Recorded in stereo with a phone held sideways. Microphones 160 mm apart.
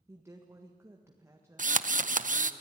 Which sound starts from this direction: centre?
A woman speaking, at 0.1 s.